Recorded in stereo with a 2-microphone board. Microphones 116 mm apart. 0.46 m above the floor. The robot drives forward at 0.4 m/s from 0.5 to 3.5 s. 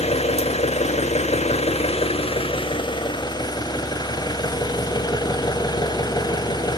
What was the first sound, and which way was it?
An engine running, 65° left (ahead or behind).